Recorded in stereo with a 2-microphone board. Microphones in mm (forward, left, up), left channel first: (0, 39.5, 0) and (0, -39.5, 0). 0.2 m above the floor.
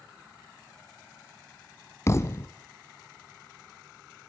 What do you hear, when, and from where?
2.1 s a thud: 35° left (ahead or behind), 0.8 m